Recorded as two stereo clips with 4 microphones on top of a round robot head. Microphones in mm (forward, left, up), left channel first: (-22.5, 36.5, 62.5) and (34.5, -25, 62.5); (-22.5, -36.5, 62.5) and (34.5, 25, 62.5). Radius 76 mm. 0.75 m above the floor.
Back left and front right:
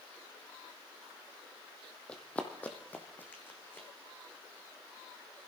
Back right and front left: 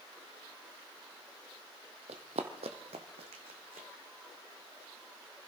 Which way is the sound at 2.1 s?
55° left.